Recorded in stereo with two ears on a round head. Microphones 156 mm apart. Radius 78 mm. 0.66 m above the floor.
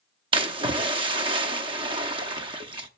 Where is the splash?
30° right (ahead or behind), 0.7 m.